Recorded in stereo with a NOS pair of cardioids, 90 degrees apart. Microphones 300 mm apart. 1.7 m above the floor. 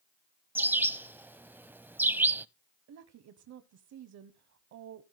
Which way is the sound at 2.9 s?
65° right.